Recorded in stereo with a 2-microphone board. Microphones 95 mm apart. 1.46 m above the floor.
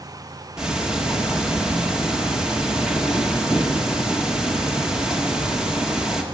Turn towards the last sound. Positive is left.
turn(degrees=-5)  # may be behind; listen again after turning